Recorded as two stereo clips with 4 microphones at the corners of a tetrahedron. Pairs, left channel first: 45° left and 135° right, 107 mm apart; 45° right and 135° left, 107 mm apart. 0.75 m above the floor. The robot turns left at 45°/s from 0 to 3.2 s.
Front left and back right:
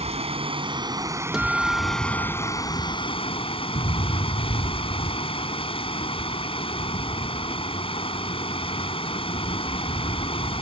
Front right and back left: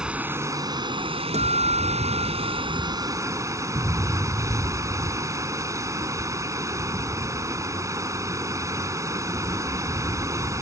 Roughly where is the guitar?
Behind left.